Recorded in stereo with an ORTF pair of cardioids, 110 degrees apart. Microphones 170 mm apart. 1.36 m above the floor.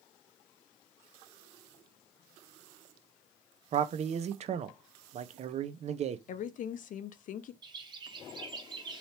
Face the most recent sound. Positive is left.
turn(degrees=-25)